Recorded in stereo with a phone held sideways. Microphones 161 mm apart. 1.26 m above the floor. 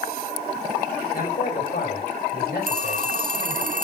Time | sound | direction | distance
1.1 | a man speaking | 65° left (ahead or behind) | 4.5 m
2.7 | a phone ringing | 55° right (ahead or behind) | 1.4 m